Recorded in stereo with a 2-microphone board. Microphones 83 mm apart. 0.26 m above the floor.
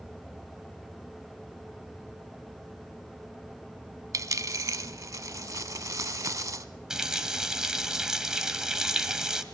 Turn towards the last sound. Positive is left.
turn(degrees=-10)  # may be behind; listen again after turning